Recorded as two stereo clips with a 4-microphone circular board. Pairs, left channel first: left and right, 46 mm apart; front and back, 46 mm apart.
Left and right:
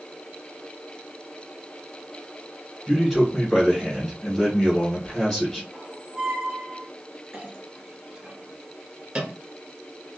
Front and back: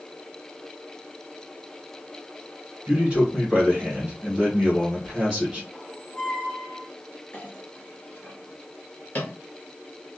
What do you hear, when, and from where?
2.9 s a man speaking: 155° left, 1.6 m
5.7 s a squeak: 50° right, 1.4 m
7.3 s a clink: 30° right, 1.4 m